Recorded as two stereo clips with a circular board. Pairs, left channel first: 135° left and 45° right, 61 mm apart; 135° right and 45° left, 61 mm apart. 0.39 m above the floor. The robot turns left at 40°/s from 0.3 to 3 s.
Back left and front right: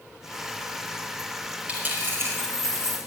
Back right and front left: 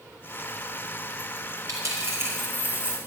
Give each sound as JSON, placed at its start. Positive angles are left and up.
{"t": 1.7, "sound": "a dropped coin", "azimuth_deg": 20, "distance_m": 4.0}